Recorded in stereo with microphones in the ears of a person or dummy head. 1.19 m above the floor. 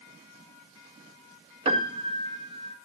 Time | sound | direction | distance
1.6 | a piano | 25° right (ahead or behind) | 1.6 m